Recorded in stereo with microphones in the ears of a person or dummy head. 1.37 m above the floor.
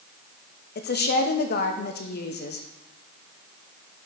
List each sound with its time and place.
0.8 s a woman speaking: 45° left (ahead or behind), 0.8 m